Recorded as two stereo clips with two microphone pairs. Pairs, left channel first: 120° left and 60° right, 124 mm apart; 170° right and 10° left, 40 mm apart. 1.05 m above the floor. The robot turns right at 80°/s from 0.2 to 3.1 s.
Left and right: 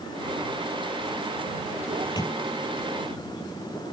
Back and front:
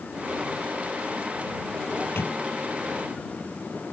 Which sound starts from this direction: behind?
A microwave, at 1.9 s.